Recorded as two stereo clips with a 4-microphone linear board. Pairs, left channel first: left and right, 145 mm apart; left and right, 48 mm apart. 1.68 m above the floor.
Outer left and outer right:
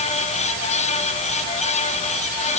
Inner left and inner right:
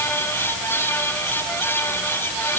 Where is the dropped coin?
No dropped coin in this recording.